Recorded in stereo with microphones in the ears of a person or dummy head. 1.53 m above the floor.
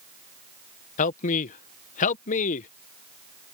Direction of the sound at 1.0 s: 45° left (ahead or behind).